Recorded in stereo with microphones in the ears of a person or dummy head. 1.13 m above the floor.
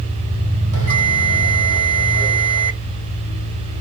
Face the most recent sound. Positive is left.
turn(degrees=-70)  # may be behind; listen again after turning